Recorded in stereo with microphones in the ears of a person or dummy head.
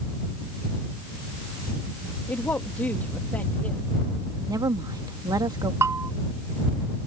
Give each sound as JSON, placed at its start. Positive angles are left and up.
{"t": 2.3, "sound": "a woman speaking", "side_deg": 20}
{"t": 4.5, "sound": "a woman speaking", "side_deg": -10}
{"t": 5.8, "sound": "a bell", "side_deg": -20}